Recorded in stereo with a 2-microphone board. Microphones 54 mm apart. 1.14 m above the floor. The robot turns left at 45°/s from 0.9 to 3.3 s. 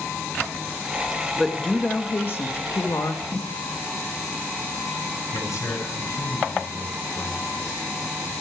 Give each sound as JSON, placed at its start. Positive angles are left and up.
{"t": 1.4, "sound": "a woman speaking", "azimuth_deg": 180, "distance_m": 1.7}
{"t": 3.3, "sound": "a snare drum", "side_deg": -75, "distance_m": 7.5}
{"t": 5.3, "sound": "a man speaking", "side_deg": 70, "distance_m": 8.5}